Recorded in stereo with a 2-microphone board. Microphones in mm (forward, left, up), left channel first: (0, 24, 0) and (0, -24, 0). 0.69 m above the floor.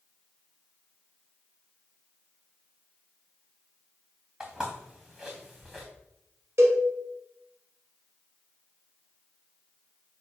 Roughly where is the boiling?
I don't hear boiling.